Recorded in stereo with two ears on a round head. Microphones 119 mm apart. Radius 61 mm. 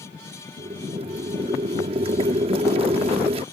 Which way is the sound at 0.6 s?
40° right (ahead or behind).